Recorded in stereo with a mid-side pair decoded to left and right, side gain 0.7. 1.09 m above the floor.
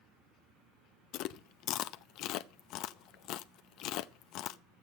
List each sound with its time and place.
1.1 s chewing: 60° left, 0.6 m